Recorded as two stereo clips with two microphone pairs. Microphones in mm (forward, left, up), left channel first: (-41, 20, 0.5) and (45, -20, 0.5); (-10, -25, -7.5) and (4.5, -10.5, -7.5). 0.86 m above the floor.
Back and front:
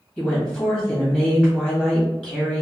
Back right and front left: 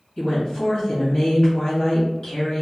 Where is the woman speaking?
125° right, 1.6 m.